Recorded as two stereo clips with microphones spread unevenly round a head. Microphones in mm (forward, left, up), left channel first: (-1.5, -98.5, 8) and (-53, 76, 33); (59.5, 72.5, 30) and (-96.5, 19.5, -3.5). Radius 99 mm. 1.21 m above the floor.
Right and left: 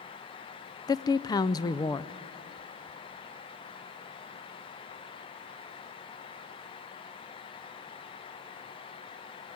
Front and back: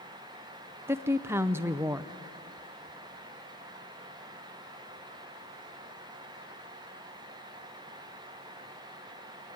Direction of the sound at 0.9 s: 115° right.